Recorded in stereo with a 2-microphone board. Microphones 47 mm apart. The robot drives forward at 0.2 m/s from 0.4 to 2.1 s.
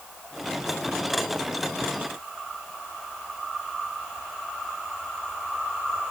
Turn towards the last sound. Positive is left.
No sound to turn to.